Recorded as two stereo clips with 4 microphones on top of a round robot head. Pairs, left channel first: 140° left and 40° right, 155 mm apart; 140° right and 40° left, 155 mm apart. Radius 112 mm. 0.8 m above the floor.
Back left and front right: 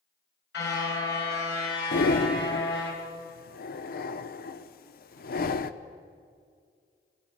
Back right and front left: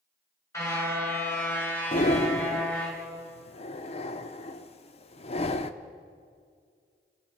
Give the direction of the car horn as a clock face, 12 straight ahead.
7 o'clock.